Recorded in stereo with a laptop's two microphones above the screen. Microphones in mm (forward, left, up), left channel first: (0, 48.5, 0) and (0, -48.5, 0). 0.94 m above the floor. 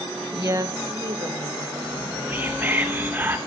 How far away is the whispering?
About 0.8 m.